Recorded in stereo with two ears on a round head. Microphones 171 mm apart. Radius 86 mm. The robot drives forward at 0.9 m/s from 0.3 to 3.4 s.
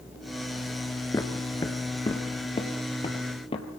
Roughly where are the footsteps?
Centre.